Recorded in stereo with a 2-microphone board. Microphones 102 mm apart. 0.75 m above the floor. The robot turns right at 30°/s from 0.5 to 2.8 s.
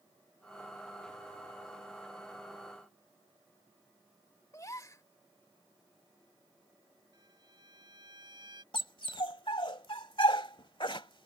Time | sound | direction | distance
4.5 | a gasp | 35° left (ahead or behind) | ?
7.1 | a violin | 50° right (ahead or behind) | ?
8.7 | a dog barking | 55° left (ahead or behind) | ?